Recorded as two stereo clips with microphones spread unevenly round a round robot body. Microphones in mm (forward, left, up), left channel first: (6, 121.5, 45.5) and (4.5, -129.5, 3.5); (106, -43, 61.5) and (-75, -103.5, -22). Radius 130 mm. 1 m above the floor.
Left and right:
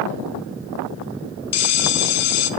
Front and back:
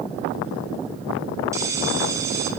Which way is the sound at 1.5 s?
130° left.